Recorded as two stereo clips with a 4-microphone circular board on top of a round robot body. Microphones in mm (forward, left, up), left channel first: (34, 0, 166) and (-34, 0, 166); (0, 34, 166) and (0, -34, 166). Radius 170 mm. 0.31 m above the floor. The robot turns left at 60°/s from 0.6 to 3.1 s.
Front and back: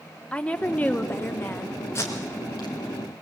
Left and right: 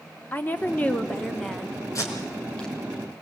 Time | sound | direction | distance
0.3 | a woman speaking | 55° left | 1.6 m
1.9 | tape being pulled | 50° left | 4 m